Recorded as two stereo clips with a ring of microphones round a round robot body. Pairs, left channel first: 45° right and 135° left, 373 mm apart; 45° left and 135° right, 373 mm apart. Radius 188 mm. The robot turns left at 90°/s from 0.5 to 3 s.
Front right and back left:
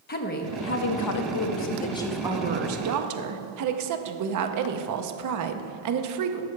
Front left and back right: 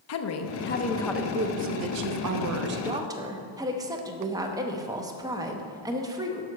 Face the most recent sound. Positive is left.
turn(degrees=145)